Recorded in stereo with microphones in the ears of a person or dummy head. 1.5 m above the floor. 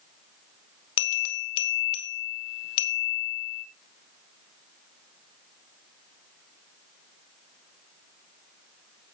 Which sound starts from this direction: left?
A bell, at 1.0 s.